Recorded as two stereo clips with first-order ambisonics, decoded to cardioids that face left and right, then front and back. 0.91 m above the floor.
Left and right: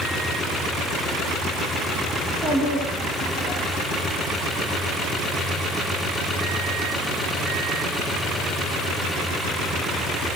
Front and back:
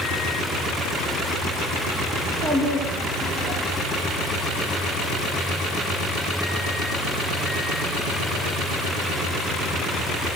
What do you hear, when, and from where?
2.2 s a child speaking: 170° left, 5 m